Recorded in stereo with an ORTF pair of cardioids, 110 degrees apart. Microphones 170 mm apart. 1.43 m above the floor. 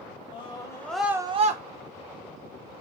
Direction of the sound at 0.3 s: 30° left.